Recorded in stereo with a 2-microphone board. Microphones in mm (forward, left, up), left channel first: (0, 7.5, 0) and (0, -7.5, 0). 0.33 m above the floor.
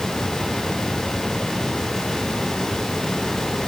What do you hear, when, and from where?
Only background noise.